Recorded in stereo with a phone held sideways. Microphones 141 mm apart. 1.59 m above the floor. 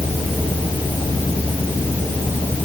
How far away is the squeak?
No squeak in this recording.